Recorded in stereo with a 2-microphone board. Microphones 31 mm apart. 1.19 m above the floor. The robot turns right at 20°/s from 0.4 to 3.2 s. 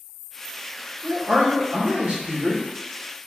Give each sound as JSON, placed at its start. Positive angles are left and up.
{"t": 1.0, "sound": "a man speaking", "azimuth_deg": -60, "distance_m": 1.4}